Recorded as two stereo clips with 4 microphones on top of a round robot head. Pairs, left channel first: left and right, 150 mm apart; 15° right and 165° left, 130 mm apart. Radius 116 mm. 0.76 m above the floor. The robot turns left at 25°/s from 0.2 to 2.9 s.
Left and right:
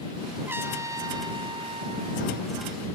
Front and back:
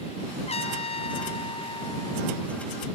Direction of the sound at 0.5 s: 15° right.